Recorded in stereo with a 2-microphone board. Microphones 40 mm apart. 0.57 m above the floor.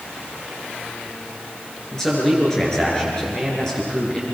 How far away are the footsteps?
I don't hear footsteps.